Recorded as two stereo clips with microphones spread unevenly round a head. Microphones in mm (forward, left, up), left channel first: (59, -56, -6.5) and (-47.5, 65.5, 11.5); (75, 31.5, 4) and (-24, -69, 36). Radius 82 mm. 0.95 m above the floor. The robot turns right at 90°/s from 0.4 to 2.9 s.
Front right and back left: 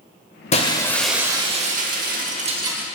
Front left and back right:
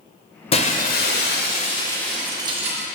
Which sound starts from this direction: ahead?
Breaking glass, at 0.5 s.